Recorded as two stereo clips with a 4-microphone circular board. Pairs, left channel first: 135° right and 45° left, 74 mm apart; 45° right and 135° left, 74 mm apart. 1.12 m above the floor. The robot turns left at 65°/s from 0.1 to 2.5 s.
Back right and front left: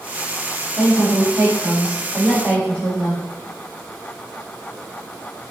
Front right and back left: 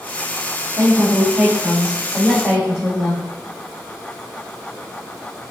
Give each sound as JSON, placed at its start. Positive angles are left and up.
{"t": 0.8, "sound": "a woman speaking", "azimuth_deg": 115, "distance_m": 2.0}